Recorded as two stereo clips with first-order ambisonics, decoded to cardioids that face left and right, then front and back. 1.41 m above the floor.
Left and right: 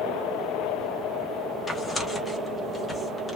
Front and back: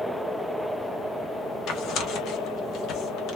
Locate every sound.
1.7 s tearing paper: 20° left, 1.0 m